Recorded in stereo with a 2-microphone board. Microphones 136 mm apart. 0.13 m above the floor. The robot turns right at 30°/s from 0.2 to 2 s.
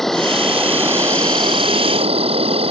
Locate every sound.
0.0 s an insect: 175° left; by 2.7 s 130° right